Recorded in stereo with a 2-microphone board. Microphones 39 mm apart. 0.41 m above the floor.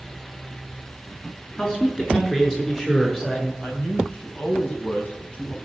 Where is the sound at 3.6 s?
30° left (ahead or behind), 4 m.